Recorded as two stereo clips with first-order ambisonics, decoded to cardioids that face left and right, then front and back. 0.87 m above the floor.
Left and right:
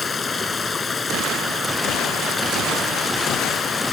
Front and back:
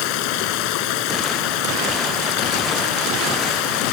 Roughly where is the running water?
Ahead.